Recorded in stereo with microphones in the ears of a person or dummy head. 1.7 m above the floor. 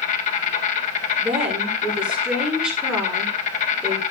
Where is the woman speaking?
10° right (ahead or behind), 6.5 m.